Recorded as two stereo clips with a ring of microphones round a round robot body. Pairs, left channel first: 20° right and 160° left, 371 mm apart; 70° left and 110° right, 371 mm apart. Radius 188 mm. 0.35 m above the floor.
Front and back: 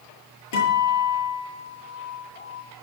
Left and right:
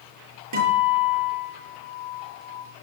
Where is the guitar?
70° right, 8 m.